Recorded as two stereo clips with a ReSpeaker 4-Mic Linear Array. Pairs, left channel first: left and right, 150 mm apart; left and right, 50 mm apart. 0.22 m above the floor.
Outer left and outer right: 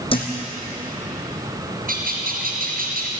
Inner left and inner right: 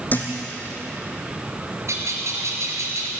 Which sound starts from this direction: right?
A bird, at 1.9 s.